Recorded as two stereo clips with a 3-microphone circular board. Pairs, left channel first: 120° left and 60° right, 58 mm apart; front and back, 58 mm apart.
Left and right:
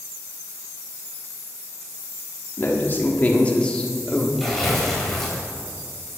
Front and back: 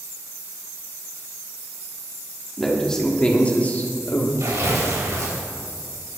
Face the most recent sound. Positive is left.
turn(degrees=-155)